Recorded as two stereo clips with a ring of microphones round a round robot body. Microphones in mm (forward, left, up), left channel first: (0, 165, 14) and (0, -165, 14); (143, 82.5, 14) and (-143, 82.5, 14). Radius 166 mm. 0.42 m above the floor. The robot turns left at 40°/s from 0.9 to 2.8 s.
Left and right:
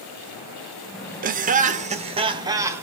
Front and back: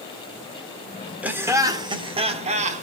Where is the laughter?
100° right, 0.7 m; by 2.8 s 165° right, 0.7 m.